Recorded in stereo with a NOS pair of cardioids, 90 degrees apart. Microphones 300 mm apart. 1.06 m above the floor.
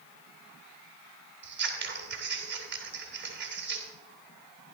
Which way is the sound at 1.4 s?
40° right.